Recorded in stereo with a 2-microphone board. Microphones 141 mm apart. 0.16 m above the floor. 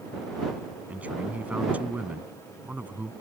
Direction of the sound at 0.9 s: 10° right (ahead or behind).